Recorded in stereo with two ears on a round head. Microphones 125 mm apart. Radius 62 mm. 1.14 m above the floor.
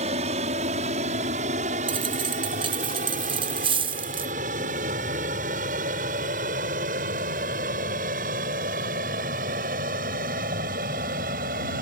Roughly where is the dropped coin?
Right.